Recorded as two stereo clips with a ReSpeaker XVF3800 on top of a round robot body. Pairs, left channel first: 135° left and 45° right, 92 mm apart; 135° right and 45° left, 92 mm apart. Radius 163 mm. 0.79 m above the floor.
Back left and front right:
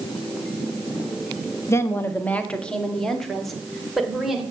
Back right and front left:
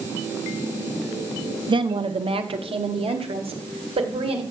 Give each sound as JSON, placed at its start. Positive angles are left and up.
{"t": 1.7, "sound": "a woman speaking", "azimuth_deg": 75, "distance_m": 1.2}